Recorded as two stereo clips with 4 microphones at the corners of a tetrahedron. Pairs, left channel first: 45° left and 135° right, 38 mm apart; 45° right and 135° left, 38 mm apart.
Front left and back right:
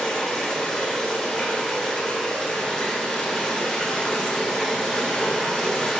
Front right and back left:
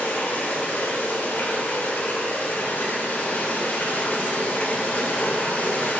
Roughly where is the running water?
Ahead right.